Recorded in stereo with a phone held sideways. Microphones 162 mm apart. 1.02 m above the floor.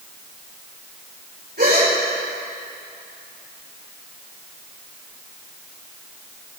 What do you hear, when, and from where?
1.6 s a gasp: 75° right (ahead or behind), 4 m